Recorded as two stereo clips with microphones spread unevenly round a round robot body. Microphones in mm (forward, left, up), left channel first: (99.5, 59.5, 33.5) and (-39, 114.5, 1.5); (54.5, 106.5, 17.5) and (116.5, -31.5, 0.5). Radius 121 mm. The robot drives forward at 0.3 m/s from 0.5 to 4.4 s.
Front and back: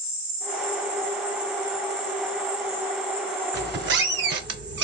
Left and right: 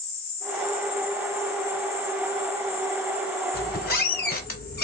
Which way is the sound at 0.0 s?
175° left.